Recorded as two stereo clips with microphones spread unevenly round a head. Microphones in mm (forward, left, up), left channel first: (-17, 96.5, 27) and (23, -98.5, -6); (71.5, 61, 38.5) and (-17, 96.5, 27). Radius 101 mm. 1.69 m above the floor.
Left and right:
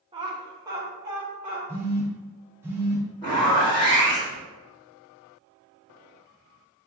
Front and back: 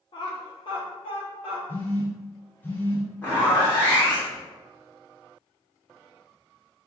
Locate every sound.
0.1 s laughter: 10° right, 0.9 m; by 1.6 s 5° left, 2 m
1.7 s a phone buzzing: 10° left, 0.8 m
3.2 s a zipper: 40° left, 1.8 m